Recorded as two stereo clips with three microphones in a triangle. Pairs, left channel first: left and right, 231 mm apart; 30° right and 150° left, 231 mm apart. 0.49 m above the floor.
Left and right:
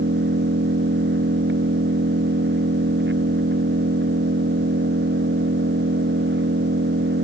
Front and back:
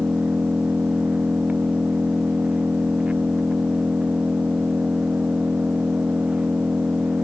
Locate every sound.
0.0 s an engine running: 125° right